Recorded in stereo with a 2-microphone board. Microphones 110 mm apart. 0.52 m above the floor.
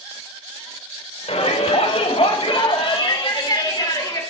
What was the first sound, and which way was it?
A shout, 70° left (ahead or behind).